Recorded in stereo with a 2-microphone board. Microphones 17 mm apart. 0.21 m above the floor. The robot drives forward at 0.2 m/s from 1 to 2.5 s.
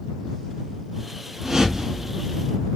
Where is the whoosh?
30° right (ahead or behind), 1.3 m; by 2.5 s 25° right (ahead or behind), 1.4 m.